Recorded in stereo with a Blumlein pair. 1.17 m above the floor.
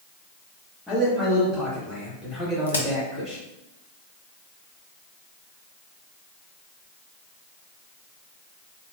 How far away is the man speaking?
About 1.6 m.